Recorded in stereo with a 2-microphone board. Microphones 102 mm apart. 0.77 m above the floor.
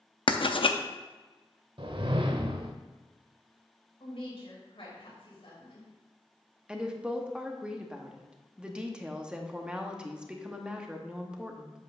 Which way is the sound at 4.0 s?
65° left (ahead or behind).